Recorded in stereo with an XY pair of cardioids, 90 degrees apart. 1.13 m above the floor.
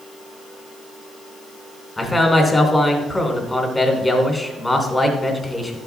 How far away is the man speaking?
About 3 m.